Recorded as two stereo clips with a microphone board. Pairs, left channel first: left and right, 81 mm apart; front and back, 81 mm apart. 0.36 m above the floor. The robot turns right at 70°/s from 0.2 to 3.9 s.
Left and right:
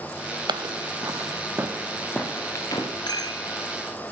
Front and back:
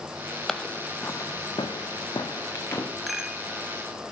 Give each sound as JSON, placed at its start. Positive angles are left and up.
{"t": 0.5, "sound": "footsteps", "azimuth_deg": -85, "distance_m": 0.7}
{"t": 3.1, "sound": "a rattle", "azimuth_deg": 90, "distance_m": 1.6}